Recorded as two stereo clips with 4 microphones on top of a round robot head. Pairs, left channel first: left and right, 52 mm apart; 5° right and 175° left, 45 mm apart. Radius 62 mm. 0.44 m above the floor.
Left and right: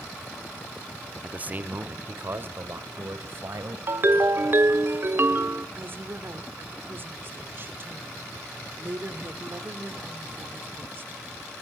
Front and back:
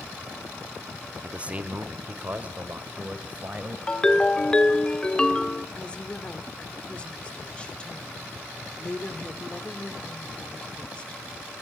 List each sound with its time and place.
1.2 s a man speaking: 135° right, 1.0 m; by 3.8 s 125° right, 2.5 m
3.9 s a ringtone: 70° right, 0.9 m
5.8 s a woman speaking: 65° right, 1.3 m